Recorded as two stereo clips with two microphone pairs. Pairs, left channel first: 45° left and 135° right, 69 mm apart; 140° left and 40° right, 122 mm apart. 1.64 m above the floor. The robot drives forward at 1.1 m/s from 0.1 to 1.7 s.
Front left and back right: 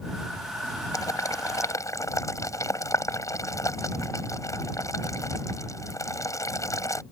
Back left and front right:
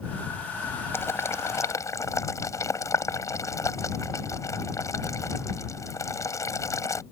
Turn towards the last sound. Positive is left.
turn(degrees=75)